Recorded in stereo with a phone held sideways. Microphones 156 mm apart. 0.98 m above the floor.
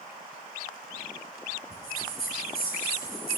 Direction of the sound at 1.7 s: 85° left.